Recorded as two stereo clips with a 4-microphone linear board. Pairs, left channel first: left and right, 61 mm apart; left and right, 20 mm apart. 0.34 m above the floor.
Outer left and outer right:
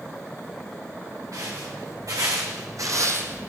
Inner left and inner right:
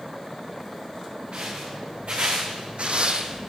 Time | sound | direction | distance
1.3 | footsteps | 70° right (ahead or behind) | 2.0 m